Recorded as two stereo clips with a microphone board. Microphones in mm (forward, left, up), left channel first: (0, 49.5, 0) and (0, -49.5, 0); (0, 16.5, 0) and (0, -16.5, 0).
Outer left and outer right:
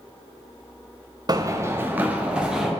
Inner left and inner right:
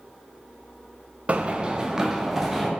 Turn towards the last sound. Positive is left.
turn(degrees=-5)  # may be behind; listen again after turning